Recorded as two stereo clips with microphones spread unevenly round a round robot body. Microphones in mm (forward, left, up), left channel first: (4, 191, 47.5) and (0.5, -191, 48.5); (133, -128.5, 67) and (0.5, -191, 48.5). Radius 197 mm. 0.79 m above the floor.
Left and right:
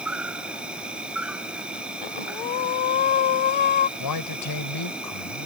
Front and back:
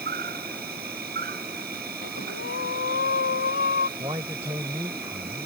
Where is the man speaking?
130° left.